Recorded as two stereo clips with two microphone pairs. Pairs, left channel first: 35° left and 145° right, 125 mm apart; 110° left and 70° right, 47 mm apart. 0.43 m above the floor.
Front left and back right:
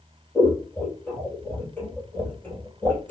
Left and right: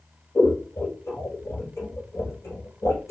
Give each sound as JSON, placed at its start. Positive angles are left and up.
{"t": 0.3, "sound": "scissors", "azimuth_deg": 110, "distance_m": 2.5}